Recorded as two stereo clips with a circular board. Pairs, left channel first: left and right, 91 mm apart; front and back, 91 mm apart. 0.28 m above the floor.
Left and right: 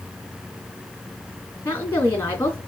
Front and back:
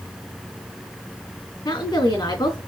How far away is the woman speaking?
About 3 m.